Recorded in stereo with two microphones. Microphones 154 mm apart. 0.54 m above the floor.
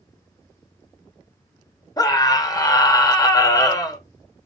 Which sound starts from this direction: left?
A scream, at 2.0 s.